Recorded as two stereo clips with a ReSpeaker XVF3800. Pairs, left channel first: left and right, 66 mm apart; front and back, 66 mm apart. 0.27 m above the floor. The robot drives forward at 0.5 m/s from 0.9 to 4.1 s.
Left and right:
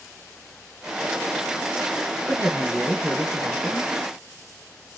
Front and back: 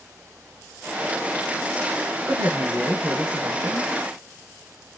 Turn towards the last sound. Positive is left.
turn(degrees=-175)